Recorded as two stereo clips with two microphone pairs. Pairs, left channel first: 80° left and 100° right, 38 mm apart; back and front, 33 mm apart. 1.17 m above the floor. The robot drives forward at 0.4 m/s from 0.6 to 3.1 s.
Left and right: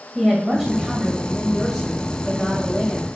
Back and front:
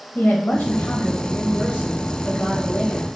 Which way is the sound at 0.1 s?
170° right.